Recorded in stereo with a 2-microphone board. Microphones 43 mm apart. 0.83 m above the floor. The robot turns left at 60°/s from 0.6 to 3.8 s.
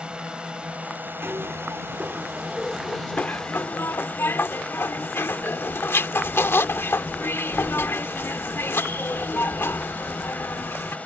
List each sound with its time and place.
0.0 s a drone: 25° right; by 11.1 s 145° left
1.2 s a zipper: 105° right; by 11.0 s 100° left